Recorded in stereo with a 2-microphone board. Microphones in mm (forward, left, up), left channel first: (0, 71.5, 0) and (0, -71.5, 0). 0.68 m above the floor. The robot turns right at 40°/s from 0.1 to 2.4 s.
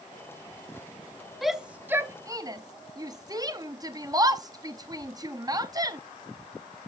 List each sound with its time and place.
1.4 s a shout: centre (ahead or behind), 0.6 m; by 6.0 s 25° right (ahead or behind), 0.6 m